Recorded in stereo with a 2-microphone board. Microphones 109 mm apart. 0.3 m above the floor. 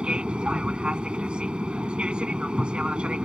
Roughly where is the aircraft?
Centre.